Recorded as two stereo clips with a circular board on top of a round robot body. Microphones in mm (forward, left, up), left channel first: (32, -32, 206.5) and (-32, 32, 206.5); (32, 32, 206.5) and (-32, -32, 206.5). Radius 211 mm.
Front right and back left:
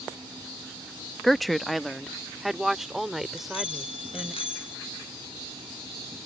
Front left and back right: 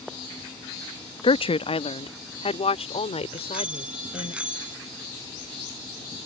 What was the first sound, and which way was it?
A woman speaking, 45° left.